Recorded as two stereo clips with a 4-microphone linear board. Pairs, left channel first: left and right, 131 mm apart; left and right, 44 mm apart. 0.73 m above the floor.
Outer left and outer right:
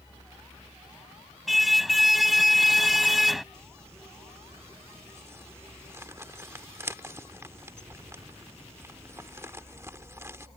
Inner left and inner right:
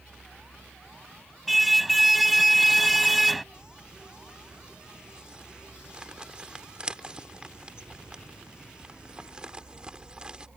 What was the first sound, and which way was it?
A car horn, centre (ahead or behind).